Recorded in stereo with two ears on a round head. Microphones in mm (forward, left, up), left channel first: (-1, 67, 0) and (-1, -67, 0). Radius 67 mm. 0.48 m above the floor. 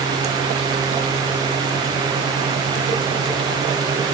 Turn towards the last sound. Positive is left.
No sound to turn to.